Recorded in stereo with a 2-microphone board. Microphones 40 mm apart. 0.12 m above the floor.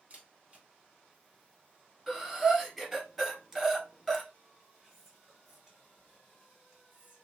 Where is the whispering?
10° right (ahead or behind), 1.8 m.